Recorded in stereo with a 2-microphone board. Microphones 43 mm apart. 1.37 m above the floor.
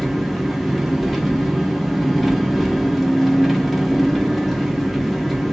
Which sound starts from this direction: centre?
An engine running, at 0.0 s.